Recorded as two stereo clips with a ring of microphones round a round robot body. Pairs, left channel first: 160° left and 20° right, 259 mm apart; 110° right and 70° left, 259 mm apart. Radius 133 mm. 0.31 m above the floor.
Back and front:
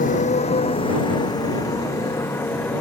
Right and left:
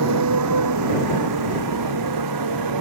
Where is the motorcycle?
95° left; by 2.8 s 75° left.